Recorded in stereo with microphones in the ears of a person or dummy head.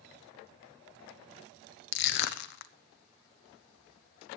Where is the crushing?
60° left (ahead or behind), 0.6 m.